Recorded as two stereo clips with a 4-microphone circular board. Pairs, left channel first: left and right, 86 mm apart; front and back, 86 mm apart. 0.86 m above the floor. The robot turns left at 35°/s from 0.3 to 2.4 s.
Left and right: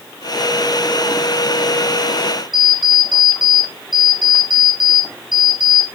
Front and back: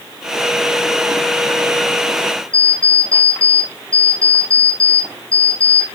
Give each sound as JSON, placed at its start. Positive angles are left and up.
{"t": 2.5, "sound": "an alarm clock", "azimuth_deg": -120, "distance_m": 5.0}